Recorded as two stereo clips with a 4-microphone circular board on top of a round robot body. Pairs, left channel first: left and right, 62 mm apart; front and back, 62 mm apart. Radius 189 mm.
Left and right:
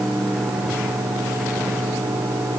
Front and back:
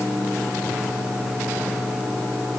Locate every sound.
Only background noise.